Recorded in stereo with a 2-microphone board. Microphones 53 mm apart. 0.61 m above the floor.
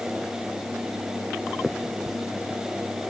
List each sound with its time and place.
1.6 s a finger snap: 5° right (ahead or behind)